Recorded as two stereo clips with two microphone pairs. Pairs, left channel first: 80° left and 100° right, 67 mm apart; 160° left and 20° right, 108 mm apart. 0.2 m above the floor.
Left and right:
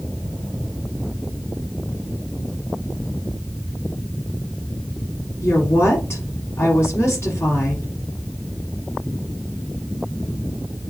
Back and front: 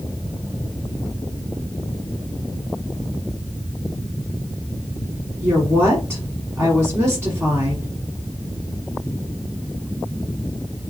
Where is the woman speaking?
50° left, 1.3 m.